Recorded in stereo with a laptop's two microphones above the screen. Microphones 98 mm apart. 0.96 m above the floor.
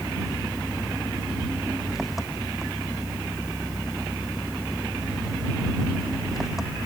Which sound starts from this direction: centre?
An engine running, at 0.0 s.